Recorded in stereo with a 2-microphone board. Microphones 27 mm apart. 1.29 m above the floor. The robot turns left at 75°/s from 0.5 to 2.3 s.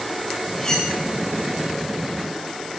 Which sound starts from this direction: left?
Cutlery clinking, at 0.6 s.